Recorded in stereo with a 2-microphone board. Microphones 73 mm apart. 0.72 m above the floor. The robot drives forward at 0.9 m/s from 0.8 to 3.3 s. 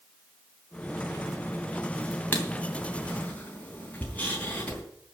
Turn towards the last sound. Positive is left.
turn(degrees=20)  # may be behind; listen again after turning